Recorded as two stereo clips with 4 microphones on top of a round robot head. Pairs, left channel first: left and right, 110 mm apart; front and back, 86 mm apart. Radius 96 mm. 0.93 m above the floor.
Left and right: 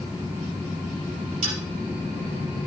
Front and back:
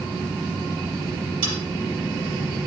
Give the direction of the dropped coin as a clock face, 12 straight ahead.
5 o'clock.